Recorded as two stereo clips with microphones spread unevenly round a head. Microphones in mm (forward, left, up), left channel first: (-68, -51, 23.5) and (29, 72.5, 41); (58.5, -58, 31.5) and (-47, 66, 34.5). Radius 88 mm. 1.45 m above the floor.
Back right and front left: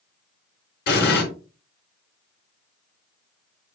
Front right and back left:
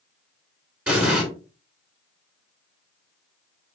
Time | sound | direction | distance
0.9 | an explosion | 145° right | 4 m